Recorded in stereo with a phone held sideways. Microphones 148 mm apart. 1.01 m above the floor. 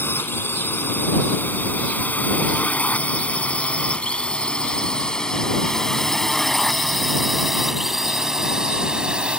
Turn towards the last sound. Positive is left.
turn(degrees=-5)  # may be behind; listen again after turning